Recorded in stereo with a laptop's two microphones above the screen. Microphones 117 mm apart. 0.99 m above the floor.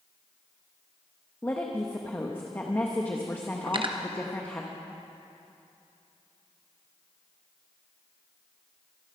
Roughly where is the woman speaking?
Centre.